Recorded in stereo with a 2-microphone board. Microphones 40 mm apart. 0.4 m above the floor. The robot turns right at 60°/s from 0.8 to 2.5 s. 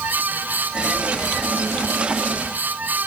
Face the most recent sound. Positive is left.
No sound to turn to.